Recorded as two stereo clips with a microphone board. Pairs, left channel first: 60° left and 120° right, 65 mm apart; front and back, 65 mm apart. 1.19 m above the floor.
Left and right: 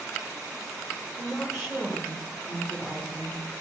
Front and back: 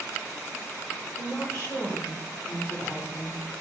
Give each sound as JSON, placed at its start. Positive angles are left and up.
{"t": 1.2, "sound": "a woman speaking", "azimuth_deg": -20, "distance_m": 1.3}